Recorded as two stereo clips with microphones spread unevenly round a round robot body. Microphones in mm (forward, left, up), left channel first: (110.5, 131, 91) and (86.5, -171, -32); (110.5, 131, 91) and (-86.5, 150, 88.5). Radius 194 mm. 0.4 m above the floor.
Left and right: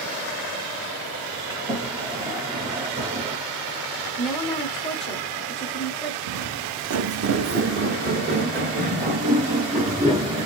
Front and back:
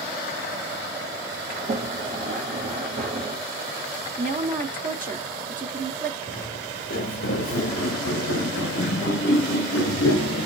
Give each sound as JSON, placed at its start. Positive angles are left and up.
{"t": 1.5, "sound": "a sliding door", "azimuth_deg": -155, "distance_m": 1.1}
{"t": 4.2, "sound": "a woman speaking", "azimuth_deg": -165, "distance_m": 1.2}
{"t": 6.3, "sound": "footsteps", "azimuth_deg": -65, "distance_m": 1.1}